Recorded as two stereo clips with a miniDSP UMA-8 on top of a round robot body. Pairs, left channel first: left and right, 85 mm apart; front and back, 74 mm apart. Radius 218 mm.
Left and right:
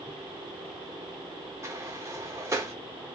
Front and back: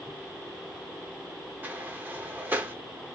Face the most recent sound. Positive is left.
turn(degrees=-125)